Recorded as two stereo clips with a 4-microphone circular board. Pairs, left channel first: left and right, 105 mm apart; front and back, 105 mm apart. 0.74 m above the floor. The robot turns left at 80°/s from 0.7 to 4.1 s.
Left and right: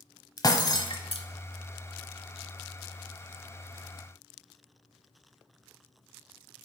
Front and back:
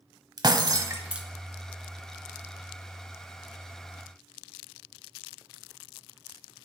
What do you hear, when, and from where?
0.4 s breaking glass: 135° left, 1.0 m; by 1.3 s 90° left, 1.0 m